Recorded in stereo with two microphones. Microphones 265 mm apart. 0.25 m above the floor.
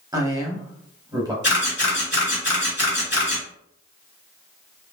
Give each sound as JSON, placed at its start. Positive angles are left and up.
{"t": 0.1, "sound": "a man speaking", "side_deg": -15, "distance_m": 0.9}
{"t": 1.4, "sound": "a camera shutter", "side_deg": 40, "distance_m": 1.4}